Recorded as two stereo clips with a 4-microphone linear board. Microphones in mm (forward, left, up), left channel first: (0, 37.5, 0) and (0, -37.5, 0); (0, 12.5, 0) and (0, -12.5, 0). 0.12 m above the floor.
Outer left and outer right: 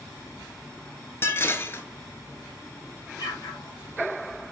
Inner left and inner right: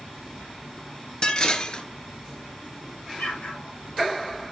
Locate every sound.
1.2 s dishes clattering: 35° left (ahead or behind), 1.2 m
3.2 s an explosion: 65° left (ahead or behind), 2.5 m